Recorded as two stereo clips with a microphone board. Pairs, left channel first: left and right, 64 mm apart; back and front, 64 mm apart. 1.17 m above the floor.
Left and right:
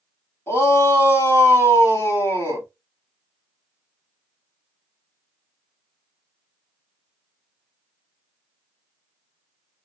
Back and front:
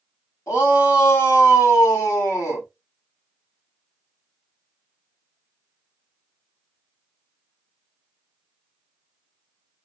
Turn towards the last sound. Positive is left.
turn(degrees=140)